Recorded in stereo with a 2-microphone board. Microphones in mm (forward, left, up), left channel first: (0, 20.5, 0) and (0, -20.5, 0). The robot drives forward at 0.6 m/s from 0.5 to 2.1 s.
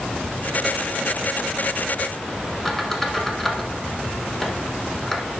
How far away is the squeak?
About 1.2 m.